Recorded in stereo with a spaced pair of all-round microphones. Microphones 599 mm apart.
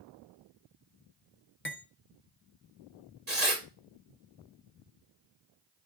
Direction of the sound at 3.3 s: 85° right.